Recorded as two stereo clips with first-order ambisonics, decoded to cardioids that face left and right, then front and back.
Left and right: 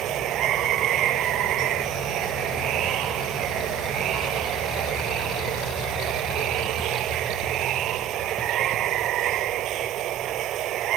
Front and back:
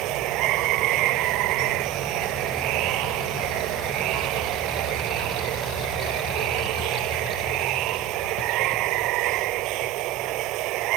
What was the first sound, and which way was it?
Running water, 140° right.